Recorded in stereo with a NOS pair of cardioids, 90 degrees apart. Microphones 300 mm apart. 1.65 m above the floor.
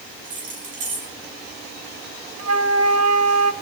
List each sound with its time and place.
0.2 s keys jangling: 55° right, 5.5 m
2.4 s a flute: 60° right, 1.5 m